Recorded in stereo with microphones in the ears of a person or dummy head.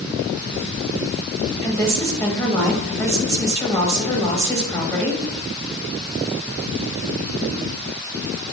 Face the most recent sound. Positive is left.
turn(degrees=15)  # may be behind; listen again after turning